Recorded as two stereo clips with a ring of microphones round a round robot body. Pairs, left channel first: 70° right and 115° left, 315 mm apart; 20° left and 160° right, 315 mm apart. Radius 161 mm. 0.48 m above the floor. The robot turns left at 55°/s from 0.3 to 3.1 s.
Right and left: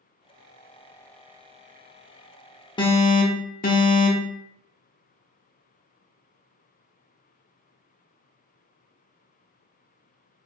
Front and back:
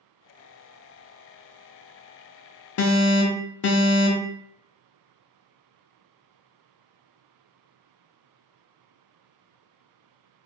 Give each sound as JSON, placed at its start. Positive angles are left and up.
{"t": 2.8, "sound": "an alarm", "azimuth_deg": 5, "distance_m": 0.6}